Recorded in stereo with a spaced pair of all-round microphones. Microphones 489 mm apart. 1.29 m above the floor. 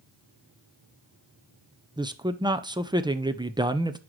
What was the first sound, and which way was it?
A man speaking, 10° right (ahead or behind).